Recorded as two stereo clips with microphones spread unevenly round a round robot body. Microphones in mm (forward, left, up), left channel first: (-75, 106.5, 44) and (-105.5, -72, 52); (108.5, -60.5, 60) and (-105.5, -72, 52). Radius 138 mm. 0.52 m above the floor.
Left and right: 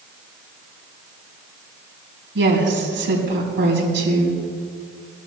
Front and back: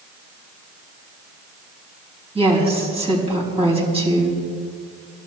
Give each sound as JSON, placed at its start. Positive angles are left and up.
{"t": 2.4, "sound": "a woman speaking", "azimuth_deg": -115, "distance_m": 4.5}